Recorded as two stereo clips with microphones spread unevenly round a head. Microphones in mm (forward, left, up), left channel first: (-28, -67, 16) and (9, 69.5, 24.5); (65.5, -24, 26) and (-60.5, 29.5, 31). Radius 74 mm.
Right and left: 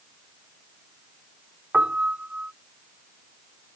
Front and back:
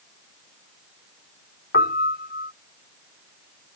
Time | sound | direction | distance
1.7 | a piano | 5° right | ?